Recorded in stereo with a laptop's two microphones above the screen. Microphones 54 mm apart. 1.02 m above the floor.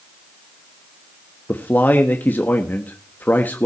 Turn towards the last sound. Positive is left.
turn(degrees=35)  # may be behind; listen again after turning